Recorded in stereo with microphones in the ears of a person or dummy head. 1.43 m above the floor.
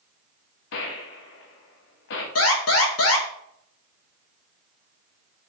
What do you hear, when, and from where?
0.7 s a gunshot: 60° left (ahead or behind), 1.3 m
2.4 s an alarm: 65° left (ahead or behind), 2 m